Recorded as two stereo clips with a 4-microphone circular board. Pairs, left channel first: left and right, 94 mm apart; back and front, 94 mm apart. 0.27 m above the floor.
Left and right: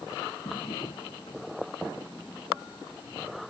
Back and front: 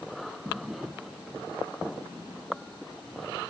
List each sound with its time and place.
0.5 s a drawer: 80° left